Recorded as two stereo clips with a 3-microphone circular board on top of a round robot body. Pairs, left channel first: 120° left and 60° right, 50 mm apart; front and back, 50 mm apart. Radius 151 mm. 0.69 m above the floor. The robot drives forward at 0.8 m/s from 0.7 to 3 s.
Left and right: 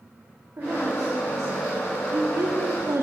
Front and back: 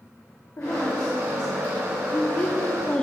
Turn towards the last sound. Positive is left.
turn(degrees=-70)